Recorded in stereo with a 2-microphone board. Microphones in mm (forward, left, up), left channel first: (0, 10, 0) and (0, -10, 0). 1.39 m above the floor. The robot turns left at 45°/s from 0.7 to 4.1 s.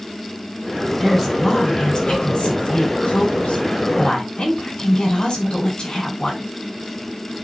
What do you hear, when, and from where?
1.0 s a woman speaking: straight behind, 6 m; by 6.4 s 40° left, 6 m